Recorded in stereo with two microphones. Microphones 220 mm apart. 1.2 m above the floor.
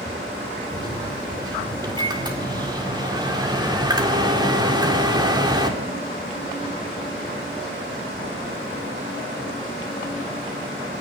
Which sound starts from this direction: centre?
A microwave, at 0.7 s.